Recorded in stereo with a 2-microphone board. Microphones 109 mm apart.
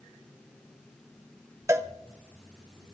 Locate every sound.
1.7 s a cowbell: 25° right (ahead or behind), 0.7 m